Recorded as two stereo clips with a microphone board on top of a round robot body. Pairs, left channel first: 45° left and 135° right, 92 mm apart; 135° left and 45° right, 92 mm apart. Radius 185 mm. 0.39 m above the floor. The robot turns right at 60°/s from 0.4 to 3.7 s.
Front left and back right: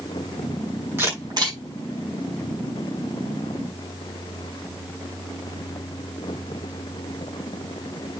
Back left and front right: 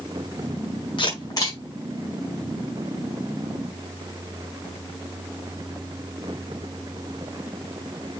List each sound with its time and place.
1.0 s a camera shutter: 160° left, 7 m; by 1.6 s 165° right, 7 m